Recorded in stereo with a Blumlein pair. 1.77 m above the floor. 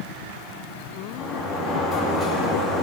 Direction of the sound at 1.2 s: 10° left.